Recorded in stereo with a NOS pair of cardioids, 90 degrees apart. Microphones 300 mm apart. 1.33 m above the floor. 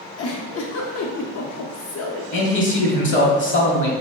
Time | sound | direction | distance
0.2 | a giggle | 50° left | 0.8 m
2.3 | a man speaking | 40° left | 1.1 m